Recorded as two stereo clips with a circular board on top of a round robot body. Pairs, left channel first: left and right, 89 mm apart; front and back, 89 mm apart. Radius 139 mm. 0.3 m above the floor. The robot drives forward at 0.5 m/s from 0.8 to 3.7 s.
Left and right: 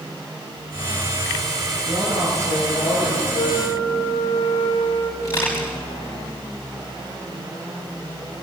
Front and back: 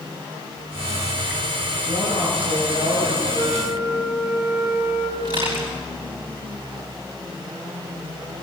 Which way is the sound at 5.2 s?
145° left.